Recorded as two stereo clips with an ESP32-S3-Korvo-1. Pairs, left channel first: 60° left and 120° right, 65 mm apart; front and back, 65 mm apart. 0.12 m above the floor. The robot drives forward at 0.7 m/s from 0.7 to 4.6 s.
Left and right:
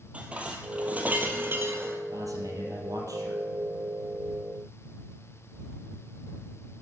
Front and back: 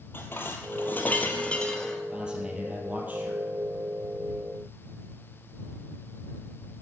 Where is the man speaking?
105° right, 3 m; by 3.4 s 120° right, 3.5 m.